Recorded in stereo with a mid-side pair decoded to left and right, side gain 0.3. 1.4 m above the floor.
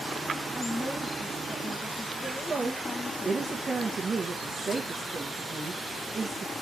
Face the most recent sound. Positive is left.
turn(degrees=-50)